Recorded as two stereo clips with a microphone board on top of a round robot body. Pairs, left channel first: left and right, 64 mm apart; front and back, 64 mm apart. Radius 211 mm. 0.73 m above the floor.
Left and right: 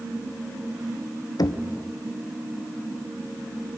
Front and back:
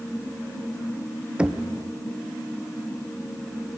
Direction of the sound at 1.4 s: 110° left.